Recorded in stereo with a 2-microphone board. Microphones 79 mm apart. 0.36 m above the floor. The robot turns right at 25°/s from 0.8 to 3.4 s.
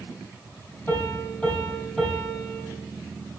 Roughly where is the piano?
Behind left.